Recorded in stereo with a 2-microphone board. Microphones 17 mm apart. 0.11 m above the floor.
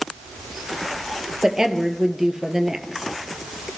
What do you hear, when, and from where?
1.4 s a woman speaking: 30° right (ahead or behind), 3 m